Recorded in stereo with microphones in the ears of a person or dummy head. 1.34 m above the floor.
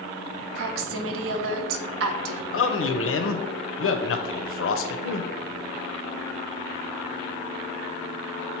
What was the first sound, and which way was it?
A woman speaking, 75° right (ahead or behind).